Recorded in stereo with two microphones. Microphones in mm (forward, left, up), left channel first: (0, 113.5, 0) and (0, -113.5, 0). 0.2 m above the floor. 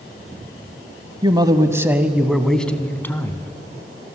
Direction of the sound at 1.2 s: 20° right (ahead or behind).